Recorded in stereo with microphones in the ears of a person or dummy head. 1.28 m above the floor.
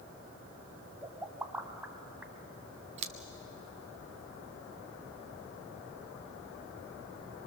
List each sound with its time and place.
1.0 s a pop: 5° right (ahead or behind), 1.9 m
3.0 s scissors: 40° right (ahead or behind), 0.7 m